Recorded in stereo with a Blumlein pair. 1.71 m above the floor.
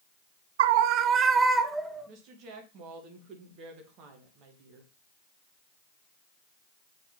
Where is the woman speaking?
35° right, 2.5 m.